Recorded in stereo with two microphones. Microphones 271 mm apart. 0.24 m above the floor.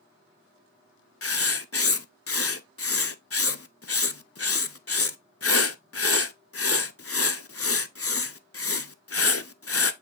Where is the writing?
60° left (ahead or behind), 0.6 m.